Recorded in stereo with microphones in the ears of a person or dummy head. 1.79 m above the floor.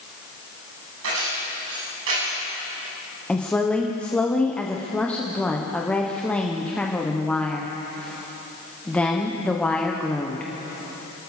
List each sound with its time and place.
1.0 s keys jangling: 80° right, 9.5 m
3.3 s a woman speaking: 10° left (ahead or behind), 1.2 m